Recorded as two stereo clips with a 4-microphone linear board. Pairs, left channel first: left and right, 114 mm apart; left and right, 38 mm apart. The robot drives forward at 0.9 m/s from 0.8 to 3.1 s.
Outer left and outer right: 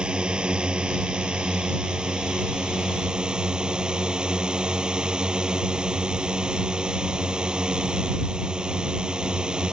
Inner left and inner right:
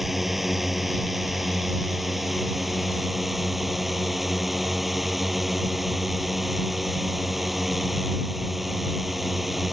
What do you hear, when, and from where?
0.0 s a drone: 10° right (ahead or behind); by 9.7 s 5° right (ahead or behind)